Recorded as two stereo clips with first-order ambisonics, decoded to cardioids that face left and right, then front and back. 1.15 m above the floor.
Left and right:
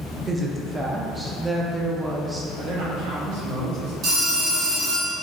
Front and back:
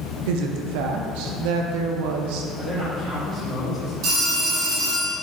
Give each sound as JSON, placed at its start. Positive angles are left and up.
{"t": 0.3, "sound": "a woman speaking", "azimuth_deg": -175, "distance_m": 0.5}
{"t": 2.6, "sound": "a man speaking", "azimuth_deg": -100, "distance_m": 1.6}
{"t": 4.0, "sound": "a phone ringing", "azimuth_deg": -140, "distance_m": 1.6}